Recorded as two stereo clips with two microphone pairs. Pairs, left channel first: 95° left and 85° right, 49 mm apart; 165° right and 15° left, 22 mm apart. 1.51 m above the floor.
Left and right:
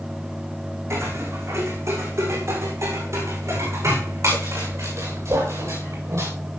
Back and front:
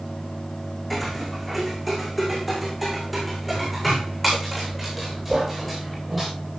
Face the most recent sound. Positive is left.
turn(degrees=-75)